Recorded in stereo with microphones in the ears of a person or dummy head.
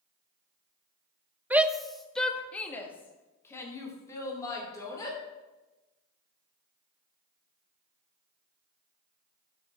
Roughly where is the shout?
Centre.